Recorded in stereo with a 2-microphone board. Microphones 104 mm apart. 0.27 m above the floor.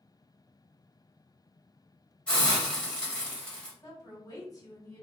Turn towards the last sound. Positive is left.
turn(degrees=35)  # may be behind; listen again after turning